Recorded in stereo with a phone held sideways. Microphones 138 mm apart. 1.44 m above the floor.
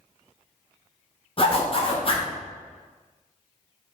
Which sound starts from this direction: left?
A zipper, at 1.4 s.